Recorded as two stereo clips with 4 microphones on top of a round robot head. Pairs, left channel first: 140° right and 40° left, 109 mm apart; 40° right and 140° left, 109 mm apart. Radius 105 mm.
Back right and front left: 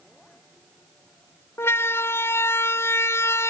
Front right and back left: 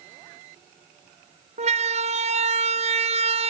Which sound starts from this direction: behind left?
A siren, at 1.6 s.